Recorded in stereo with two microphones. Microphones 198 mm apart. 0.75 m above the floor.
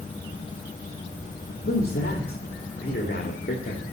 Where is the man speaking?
50° left (ahead or behind), 1.7 m.